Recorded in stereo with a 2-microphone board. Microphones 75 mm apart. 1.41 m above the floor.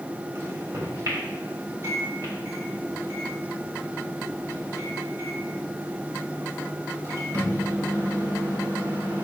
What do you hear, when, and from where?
0.3 s a microwave: 40° right (ahead or behind), 3.5 m